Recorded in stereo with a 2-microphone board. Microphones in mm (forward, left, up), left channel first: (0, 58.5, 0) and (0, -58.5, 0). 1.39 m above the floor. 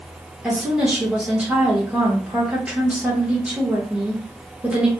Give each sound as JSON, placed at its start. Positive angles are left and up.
{"t": 0.4, "sound": "a woman speaking", "side_deg": -10, "distance_m": 1.0}